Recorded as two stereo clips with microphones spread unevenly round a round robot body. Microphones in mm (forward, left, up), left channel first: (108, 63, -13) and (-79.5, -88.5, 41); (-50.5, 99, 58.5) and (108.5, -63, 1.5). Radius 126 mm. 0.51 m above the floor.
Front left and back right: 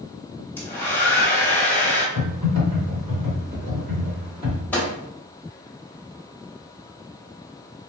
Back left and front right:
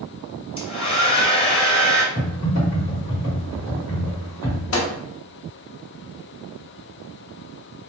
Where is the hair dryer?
65° left, 1.0 m.